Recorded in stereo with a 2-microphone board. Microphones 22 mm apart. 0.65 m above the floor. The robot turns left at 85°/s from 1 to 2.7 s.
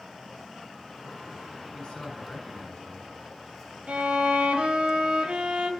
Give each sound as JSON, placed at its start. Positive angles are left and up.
{"t": 1.7, "sound": "a man speaking", "azimuth_deg": 160, "distance_m": 6.0}
{"t": 3.9, "sound": "a violin", "side_deg": -55, "distance_m": 1.8}